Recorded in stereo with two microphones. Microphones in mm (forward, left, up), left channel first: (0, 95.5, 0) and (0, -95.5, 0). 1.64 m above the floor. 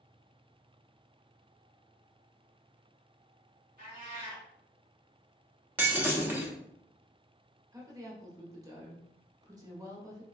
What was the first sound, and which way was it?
A cat meowing, 45° right (ahead or behind).